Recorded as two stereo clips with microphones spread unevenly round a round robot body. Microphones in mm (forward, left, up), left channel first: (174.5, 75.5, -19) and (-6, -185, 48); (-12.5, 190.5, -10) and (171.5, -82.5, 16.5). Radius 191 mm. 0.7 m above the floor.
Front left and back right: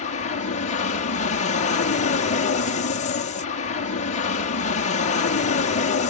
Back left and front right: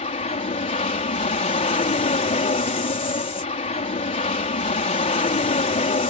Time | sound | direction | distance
0.0 | an aircraft | 70° left | ?